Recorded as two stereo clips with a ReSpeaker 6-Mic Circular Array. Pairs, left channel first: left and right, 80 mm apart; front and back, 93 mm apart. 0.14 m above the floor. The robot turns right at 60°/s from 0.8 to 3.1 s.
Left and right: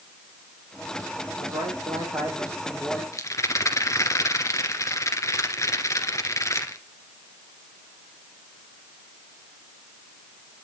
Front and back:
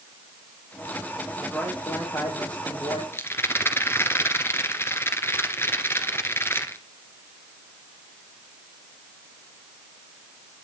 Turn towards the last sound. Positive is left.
turn(degrees=55)